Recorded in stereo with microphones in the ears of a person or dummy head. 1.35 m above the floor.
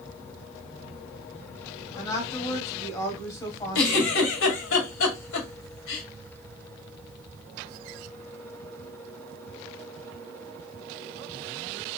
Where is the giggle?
80° left, 2 m.